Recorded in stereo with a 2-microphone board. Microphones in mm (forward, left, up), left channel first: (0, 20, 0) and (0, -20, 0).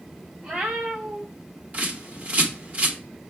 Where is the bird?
40° right (ahead or behind), 1.2 m.